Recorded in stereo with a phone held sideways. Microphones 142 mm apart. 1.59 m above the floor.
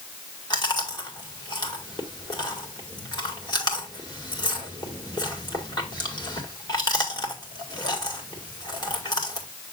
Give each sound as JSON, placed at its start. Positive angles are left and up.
{"t": 0.5, "sound": "chewing", "side_deg": 30, "distance_m": 1.8}